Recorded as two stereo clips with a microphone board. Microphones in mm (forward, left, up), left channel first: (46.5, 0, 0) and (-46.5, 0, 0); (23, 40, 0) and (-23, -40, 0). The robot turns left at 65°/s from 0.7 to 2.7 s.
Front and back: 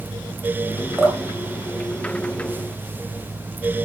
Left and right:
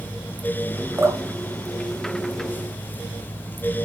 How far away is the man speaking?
I don't hear a man speaking.